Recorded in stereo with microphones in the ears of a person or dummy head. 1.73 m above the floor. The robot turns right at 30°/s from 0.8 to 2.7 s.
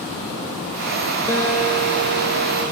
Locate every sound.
1.3 s a guitar: 25° left, 4 m; by 2.6 s 65° left, 4 m